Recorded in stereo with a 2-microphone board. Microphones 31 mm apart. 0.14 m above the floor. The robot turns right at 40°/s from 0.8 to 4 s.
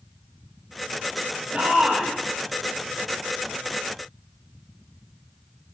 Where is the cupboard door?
No cupboard door in this recording.